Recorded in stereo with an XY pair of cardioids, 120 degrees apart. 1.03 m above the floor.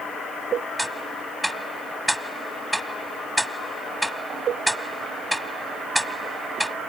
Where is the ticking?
Straight ahead.